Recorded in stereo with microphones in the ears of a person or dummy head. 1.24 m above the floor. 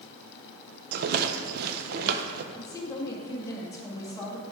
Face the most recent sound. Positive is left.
turn(degrees=15)  # may be behind; listen again after turning